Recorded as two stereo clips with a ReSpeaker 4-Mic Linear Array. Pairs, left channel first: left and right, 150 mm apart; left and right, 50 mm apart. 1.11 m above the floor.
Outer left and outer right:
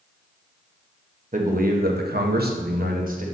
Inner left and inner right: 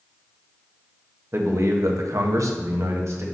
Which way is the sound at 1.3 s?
55° right (ahead or behind).